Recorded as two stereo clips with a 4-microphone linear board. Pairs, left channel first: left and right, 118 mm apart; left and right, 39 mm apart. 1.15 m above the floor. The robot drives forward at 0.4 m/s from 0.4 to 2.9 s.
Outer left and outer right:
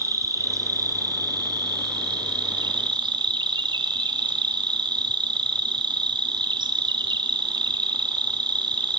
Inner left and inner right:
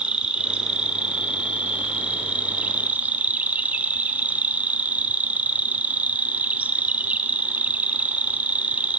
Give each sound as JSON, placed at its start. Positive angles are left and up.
{"t": 0.0, "sound": "an insect", "side_deg": -30, "distance_m": 2.0}